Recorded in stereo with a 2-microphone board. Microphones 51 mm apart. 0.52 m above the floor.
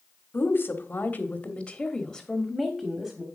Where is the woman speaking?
45° left (ahead or behind), 1.4 m; by 3.3 s 15° right (ahead or behind), 1.4 m.